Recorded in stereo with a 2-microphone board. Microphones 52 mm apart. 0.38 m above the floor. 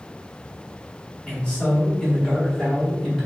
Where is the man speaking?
15° left (ahead or behind), 1.4 m; by 3.2 s centre (ahead or behind), 1.5 m.